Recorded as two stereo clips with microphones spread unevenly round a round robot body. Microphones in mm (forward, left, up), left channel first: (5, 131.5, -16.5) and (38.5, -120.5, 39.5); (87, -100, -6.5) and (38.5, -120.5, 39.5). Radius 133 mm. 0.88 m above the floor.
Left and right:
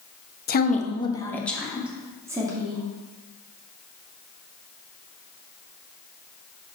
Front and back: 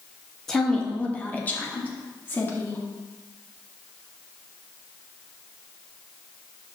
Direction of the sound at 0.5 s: 65° left.